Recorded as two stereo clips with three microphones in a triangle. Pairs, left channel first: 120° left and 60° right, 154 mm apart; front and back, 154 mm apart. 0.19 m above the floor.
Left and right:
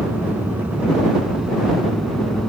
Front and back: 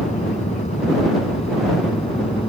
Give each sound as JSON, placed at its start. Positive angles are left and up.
{"t": 0.0, "sound": "an aircraft", "azimuth_deg": 10}